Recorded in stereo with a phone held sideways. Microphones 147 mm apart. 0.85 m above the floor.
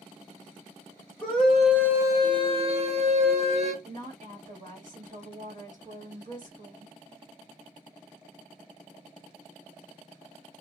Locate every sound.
1.2 s a scream: 10° left (ahead or behind), 1.1 m; by 3.7 s 50° right (ahead or behind), 1.5 m
3.8 s a woman speaking: 60° right (ahead or behind), 1.8 m